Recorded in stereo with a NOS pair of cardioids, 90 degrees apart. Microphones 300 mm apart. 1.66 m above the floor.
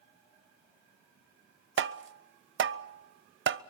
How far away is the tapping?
About 0.8 m.